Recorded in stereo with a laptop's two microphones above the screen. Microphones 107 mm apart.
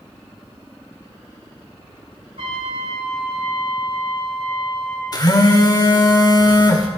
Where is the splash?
I don't hear a splash.